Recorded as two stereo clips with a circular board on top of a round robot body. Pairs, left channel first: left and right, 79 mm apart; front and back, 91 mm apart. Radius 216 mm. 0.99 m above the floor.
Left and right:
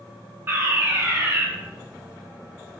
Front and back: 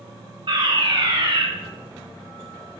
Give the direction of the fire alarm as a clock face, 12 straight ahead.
5 o'clock.